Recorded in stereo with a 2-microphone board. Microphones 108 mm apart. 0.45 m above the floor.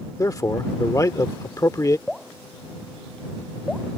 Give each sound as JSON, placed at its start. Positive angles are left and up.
{"t": 0.2, "sound": "a man speaking", "side_deg": 30}
{"t": 2.1, "sound": "dripping", "side_deg": 0}